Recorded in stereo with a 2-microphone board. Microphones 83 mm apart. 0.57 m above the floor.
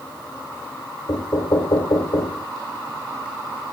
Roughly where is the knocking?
Left.